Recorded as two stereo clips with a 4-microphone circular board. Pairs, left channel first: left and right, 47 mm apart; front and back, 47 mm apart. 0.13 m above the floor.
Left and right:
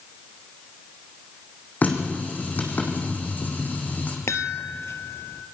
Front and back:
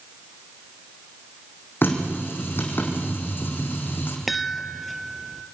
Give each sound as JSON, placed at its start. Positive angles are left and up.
{"t": 1.8, "sound": "a running tap", "azimuth_deg": 40, "distance_m": 4.0}
{"t": 4.3, "sound": "a chime", "azimuth_deg": 90, "distance_m": 1.0}